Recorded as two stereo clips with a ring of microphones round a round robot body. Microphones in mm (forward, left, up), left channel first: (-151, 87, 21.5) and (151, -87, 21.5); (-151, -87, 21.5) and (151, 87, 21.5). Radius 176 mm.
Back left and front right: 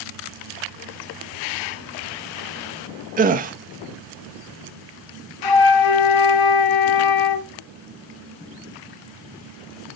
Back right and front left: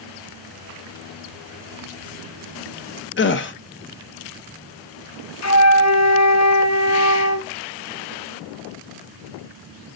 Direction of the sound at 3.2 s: 95° right.